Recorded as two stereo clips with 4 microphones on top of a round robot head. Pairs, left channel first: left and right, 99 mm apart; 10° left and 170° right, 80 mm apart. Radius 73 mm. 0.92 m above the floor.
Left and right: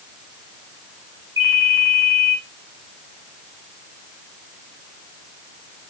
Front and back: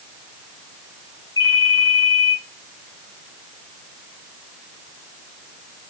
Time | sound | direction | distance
1.4 | a ringtone | 35° right | 2.5 m